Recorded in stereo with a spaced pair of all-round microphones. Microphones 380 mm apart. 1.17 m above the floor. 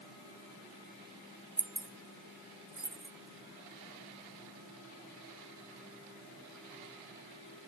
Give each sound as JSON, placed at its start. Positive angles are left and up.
{"t": 1.6, "sound": "keys jangling", "side_deg": -25, "distance_m": 0.8}